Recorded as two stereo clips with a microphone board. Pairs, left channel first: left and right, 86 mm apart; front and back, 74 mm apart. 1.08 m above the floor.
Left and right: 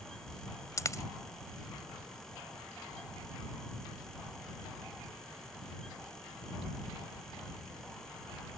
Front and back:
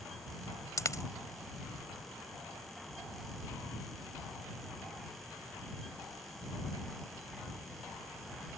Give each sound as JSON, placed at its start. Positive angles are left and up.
{"t": 0.8, "sound": "a dropped coin", "azimuth_deg": 40}